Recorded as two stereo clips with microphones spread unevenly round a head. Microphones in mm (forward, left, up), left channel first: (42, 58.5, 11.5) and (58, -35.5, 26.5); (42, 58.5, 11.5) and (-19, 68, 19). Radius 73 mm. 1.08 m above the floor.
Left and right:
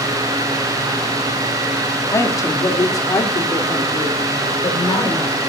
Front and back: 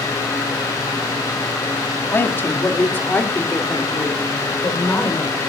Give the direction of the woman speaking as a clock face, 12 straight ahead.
11 o'clock.